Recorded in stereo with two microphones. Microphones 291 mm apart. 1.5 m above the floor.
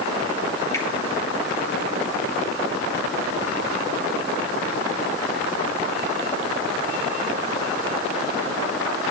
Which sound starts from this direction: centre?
A finger snap, at 0.7 s.